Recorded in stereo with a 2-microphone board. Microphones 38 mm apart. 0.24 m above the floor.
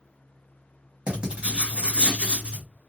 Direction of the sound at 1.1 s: 30° right (ahead or behind).